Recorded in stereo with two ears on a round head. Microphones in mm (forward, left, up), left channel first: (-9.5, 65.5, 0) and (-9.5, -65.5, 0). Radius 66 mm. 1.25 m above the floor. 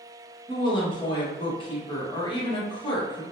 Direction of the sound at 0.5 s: 35° left (ahead or behind).